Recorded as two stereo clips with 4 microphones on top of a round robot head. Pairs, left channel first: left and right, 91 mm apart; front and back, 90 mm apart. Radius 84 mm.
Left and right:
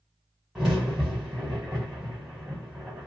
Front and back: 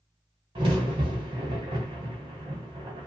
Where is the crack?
175° right, 0.7 m.